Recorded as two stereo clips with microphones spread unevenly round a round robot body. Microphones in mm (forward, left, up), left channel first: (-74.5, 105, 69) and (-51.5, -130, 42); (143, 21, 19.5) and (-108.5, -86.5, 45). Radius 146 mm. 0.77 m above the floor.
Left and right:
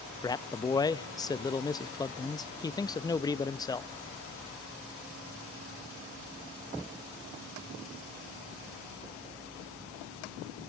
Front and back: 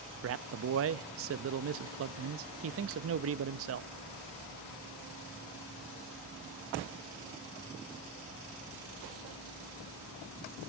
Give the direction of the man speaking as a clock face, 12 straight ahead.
6 o'clock.